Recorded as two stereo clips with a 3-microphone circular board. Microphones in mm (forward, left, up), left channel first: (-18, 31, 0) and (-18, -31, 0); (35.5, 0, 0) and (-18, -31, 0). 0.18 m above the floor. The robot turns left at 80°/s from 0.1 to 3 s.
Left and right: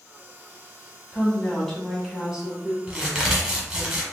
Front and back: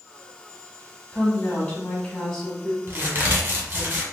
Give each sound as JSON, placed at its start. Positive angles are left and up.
{"t": 1.1, "sound": "a woman speaking", "azimuth_deg": 60, "distance_m": 1.1}
{"t": 2.9, "sound": "a crack", "azimuth_deg": -150, "distance_m": 1.2}